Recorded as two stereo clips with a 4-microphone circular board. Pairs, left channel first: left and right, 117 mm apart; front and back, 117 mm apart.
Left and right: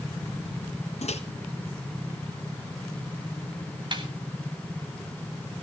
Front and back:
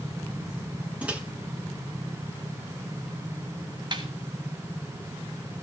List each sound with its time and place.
1.0 s a microwave: 100° left, 1.7 m
3.9 s a snare drum: 135° right, 3 m